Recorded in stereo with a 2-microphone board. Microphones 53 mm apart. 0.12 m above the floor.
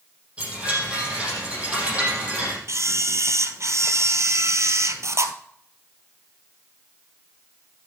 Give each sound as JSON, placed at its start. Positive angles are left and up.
{"t": 0.4, "sound": "a chime", "side_deg": -25, "distance_m": 5.0}
{"t": 2.7, "sound": "a camera shutter", "side_deg": -65, "distance_m": 1.0}